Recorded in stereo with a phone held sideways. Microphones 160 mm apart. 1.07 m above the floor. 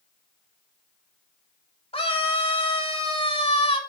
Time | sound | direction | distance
1.9 | a scream | 35° left (ahead or behind) | 3 m